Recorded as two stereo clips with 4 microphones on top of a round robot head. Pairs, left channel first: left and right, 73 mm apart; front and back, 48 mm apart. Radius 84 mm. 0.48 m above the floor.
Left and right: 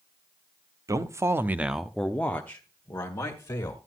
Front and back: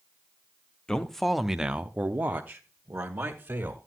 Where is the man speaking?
75° right, 1.0 m; by 3.8 s 135° left, 2 m.